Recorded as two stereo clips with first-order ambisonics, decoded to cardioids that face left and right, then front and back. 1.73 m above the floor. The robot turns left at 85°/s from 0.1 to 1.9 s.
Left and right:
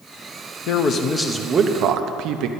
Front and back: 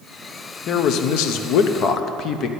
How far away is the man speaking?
About 0.7 m.